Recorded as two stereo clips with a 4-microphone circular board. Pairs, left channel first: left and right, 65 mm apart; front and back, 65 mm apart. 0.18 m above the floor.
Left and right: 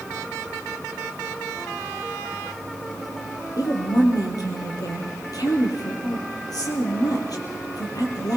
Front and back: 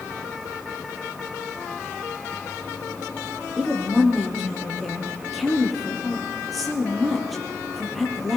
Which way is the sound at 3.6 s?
90° left.